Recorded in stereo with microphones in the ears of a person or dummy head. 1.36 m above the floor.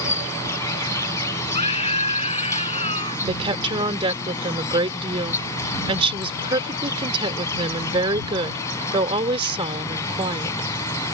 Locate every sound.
0.0 s an insect: 20° left (ahead or behind)
1.5 s a scream: 30° left (ahead or behind)
3.3 s a woman speaking: 25° right (ahead or behind)